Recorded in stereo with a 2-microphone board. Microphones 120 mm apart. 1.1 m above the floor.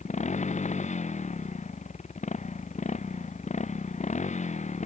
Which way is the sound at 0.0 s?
80° left.